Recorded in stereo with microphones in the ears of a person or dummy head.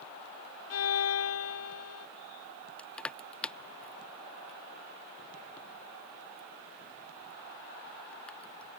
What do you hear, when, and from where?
0.7 s a violin: 80° left
2.8 s crushing: 5° left (ahead or behind)